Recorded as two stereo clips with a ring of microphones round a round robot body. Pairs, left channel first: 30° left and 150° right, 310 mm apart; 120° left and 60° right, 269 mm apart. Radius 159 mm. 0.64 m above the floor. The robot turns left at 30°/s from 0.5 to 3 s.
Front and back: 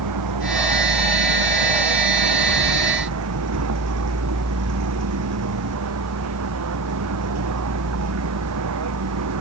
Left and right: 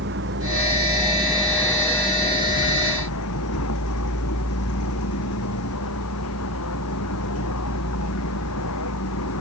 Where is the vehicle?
115° right; by 9.4 s 170° left.